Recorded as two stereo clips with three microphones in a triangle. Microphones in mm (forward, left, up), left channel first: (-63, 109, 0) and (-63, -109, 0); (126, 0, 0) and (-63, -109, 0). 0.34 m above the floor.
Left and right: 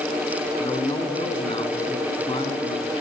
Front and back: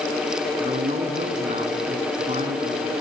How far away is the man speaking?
About 4.5 m.